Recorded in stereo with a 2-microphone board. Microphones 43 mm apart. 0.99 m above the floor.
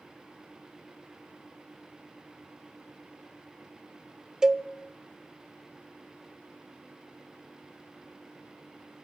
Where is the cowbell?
10° right (ahead or behind), 0.8 m.